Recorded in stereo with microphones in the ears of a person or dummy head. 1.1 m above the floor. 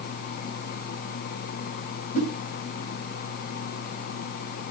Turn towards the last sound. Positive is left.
turn(degrees=45)  # may be behind; listen again after turning